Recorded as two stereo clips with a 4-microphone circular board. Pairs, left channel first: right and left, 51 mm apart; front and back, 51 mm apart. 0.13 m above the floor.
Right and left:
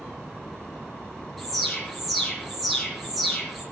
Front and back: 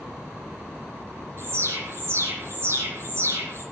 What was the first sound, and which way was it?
An alarm, straight behind.